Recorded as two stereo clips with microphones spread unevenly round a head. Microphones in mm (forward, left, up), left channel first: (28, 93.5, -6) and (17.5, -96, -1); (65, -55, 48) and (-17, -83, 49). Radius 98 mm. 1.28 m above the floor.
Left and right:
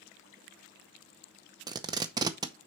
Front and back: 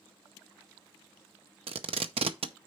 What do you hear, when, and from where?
1.7 s tape being pulled: 165° right, 0.6 m